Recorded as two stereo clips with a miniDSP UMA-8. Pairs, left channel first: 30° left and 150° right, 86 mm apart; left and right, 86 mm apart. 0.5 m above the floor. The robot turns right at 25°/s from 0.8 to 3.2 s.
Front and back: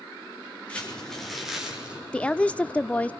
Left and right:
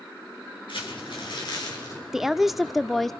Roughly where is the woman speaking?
Ahead.